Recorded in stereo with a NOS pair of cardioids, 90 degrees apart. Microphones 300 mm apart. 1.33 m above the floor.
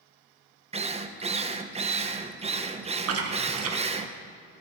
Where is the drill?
20° right, 0.7 m.